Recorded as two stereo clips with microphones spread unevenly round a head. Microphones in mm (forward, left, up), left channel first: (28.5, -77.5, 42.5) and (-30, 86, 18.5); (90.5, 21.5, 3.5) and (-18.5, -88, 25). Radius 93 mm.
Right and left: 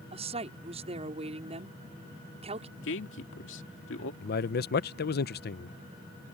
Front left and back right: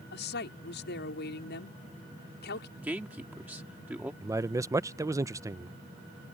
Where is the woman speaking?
55° left.